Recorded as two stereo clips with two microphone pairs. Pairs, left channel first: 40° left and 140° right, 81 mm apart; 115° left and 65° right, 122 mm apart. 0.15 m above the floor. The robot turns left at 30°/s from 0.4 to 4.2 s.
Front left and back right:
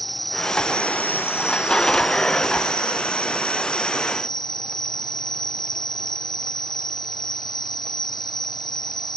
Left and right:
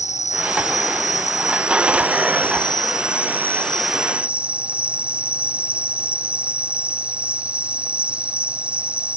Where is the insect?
130° left; by 9.2 s 15° left.